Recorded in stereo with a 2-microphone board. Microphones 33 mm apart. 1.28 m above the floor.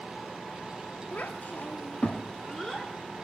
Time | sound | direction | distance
1.1 | a child speaking | 55° left (ahead or behind) | 1.4 m